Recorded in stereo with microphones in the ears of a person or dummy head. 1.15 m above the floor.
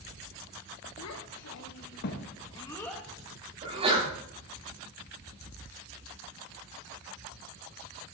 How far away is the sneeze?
About 8 m.